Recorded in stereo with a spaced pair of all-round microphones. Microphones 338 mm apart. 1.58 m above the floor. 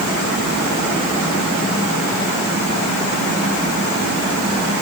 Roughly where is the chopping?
I don't hear chopping.